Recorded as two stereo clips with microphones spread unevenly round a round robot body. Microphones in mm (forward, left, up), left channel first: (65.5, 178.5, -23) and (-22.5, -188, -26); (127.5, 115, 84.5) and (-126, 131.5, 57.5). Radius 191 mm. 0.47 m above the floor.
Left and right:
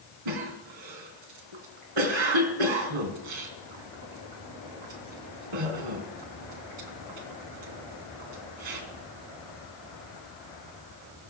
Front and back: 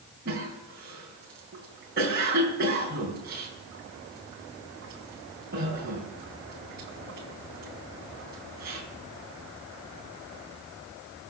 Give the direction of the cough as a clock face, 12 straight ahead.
4 o'clock.